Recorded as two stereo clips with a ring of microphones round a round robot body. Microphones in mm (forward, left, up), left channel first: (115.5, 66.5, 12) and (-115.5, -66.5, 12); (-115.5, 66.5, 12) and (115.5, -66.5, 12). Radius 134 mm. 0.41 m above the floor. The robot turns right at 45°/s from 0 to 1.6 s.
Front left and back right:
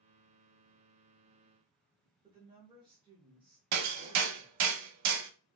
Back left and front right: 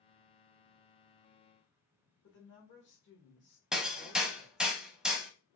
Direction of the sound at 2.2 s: 145° left.